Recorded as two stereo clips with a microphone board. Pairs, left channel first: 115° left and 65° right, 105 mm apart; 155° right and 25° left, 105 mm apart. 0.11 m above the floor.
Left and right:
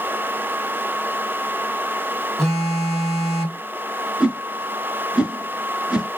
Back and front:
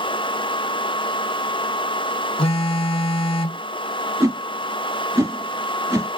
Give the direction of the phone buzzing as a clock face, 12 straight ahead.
5 o'clock.